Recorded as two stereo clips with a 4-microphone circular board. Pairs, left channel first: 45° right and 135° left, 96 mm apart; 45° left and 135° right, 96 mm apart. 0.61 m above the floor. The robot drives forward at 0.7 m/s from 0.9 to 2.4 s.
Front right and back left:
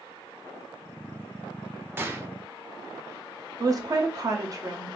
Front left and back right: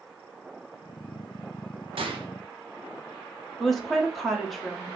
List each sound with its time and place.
2.0 s a gunshot: 160° right, 0.5 m; by 2.3 s 165° right, 0.7 m
3.6 s a woman speaking: 135° left, 0.7 m